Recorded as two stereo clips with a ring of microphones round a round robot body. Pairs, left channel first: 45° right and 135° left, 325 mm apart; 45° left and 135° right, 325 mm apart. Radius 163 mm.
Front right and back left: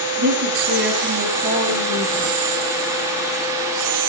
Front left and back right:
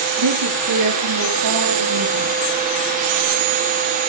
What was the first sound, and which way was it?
A woman speaking, 165° right.